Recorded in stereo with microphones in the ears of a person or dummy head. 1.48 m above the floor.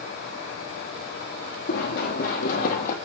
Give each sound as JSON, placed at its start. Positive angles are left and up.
{"t": 1.7, "sound": "running footsteps", "side_deg": 55, "distance_m": 3.5}